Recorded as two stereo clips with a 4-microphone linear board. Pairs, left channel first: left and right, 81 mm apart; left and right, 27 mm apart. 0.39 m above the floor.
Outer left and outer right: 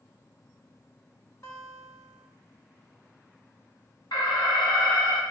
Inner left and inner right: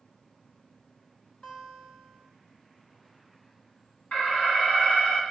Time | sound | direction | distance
1.4 | a guitar | 40° left (ahead or behind) | 2 m
4.1 | an alarm | 65° left (ahead or behind) | 3 m